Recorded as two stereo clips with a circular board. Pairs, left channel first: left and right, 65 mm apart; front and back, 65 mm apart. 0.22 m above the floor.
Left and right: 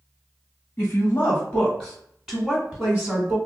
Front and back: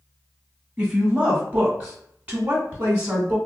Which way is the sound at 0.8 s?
115° left.